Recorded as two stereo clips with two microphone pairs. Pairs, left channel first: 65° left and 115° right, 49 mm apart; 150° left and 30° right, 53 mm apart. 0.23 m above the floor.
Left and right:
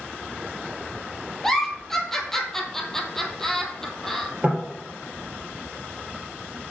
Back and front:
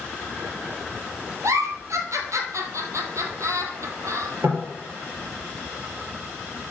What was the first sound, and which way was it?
A giggle, 20° right.